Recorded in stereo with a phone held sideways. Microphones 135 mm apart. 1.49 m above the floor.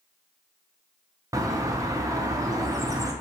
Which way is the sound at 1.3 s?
25° right (ahead or behind).